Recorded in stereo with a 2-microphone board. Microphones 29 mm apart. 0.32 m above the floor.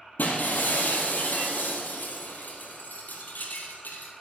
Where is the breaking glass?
90° left, 2 m.